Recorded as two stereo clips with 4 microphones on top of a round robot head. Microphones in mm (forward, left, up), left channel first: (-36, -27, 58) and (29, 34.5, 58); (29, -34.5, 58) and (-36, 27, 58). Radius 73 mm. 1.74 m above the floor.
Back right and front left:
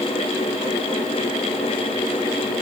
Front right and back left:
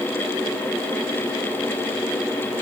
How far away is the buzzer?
No buzzer in this recording.